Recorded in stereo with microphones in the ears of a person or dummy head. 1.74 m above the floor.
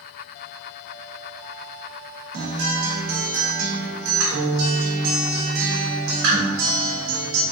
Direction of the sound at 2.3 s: 60° right (ahead or behind).